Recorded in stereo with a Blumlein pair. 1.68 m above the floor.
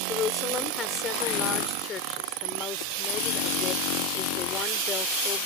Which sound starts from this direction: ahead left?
A woman speaking, at 0.1 s.